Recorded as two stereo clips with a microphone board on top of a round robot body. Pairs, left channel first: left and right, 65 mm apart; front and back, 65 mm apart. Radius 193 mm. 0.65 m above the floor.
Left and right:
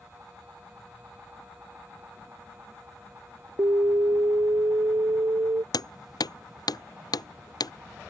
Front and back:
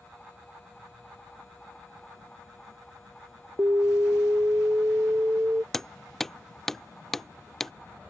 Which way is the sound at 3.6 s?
130° right.